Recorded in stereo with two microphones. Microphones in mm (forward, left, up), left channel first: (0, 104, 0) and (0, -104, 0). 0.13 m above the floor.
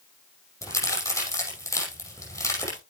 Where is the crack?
15° left (ahead or behind), 5.5 m.